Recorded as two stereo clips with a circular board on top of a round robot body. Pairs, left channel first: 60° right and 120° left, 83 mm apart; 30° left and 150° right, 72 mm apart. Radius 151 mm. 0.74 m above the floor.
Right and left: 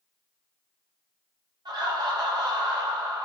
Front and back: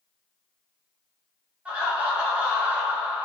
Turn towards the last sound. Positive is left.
turn(degrees=140)